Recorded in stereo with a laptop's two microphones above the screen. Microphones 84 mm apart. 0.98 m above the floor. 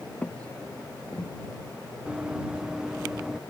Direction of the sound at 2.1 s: 10° right (ahead or behind).